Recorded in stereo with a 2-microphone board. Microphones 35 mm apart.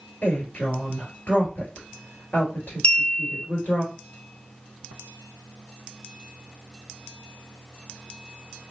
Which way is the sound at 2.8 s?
30° left (ahead or behind).